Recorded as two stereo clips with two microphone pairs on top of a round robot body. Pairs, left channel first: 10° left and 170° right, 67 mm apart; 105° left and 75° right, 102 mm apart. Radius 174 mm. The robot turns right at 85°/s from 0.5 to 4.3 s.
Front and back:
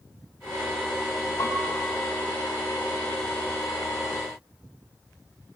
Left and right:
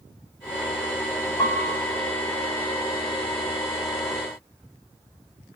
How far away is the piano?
About 6 m.